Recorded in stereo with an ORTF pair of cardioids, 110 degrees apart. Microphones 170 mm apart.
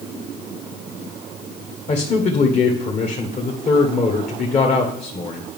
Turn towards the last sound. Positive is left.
turn(degrees=40)